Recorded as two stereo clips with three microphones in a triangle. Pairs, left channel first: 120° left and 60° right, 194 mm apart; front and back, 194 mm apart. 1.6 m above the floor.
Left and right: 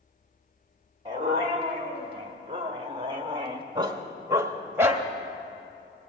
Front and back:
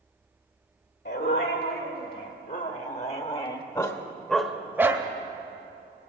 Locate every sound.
1.1 s a dog barking: straight ahead, 2.0 m; by 5.1 s 130° right, 1.1 m